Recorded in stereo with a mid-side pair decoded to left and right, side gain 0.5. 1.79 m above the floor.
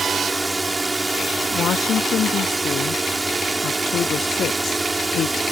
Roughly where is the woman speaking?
Ahead left.